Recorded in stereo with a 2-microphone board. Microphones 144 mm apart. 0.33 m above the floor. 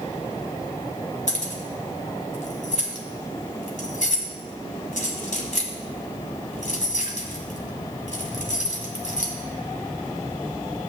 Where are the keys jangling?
60° left (ahead or behind), 1.7 m.